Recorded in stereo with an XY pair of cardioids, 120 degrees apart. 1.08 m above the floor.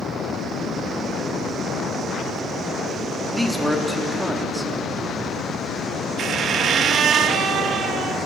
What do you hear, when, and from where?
3.3 s a man speaking: 5° right, 1.9 m
6.2 s a squeak: 55° right, 0.7 m